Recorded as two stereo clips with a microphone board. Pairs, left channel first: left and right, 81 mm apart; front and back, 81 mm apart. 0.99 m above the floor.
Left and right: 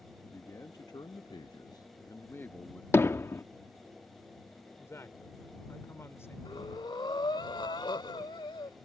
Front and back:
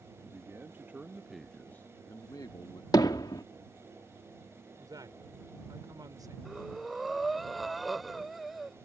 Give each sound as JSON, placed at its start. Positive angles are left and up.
{"t": 0.2, "sound": "a man speaking", "azimuth_deg": 130}
{"t": 2.9, "sound": "hammering", "azimuth_deg": 30}
{"t": 4.8, "sound": "a woman speaking", "azimuth_deg": 145}
{"t": 6.5, "sound": "breathing", "azimuth_deg": 90}